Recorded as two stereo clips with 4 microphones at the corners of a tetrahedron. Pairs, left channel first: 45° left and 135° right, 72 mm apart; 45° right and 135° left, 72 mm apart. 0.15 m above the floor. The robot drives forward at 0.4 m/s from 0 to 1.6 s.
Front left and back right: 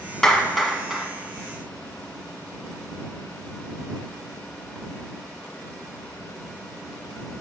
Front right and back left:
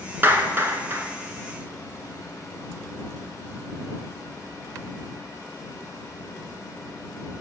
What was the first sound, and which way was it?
A clap, 120° left.